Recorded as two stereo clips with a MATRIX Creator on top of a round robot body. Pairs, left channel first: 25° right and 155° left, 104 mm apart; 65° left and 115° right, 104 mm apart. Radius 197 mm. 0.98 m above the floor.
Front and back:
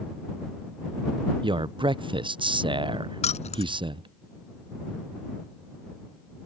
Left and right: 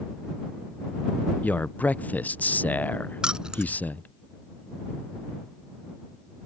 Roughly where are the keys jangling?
Ahead right.